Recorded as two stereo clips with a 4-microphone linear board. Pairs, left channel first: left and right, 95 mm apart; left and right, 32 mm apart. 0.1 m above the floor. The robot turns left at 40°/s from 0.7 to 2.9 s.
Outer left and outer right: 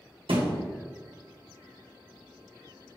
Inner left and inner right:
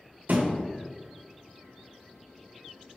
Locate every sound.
0.3 s a thud: 75° right (ahead or behind), 1.8 m